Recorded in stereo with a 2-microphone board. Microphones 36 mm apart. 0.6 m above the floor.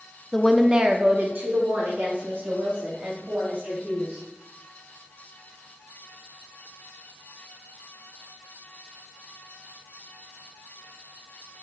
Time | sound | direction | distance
0.3 | a woman speaking | 15° left (ahead or behind) | 0.6 m